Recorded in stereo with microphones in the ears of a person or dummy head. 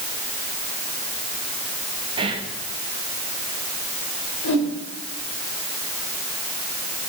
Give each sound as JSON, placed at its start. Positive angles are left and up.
{"t": 2.2, "sound": "whispering", "side_deg": -25, "distance_m": 1.4}
{"t": 4.4, "sound": "a whoosh", "side_deg": 80, "distance_m": 5.0}